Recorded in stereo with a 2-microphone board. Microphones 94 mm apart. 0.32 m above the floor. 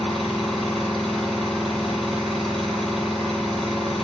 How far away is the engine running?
About 2 m.